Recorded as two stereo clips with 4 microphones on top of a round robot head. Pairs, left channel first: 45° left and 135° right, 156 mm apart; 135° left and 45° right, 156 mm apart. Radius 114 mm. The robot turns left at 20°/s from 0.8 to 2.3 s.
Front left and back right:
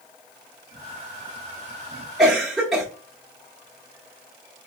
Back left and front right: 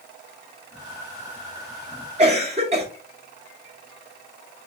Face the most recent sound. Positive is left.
turn(degrees=-50)